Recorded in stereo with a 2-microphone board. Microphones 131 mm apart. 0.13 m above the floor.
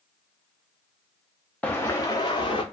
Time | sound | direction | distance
1.6 | footsteps | 10° left (ahead or behind) | 0.6 m